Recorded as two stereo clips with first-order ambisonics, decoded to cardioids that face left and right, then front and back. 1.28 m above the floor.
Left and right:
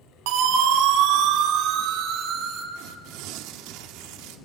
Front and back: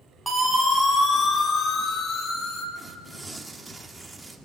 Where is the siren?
85° right, 3.5 m; by 2.6 s 45° right, 3.5 m.